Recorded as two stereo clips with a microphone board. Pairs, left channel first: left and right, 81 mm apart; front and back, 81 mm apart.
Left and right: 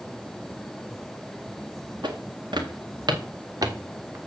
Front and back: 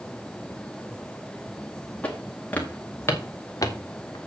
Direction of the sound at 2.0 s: 75° right.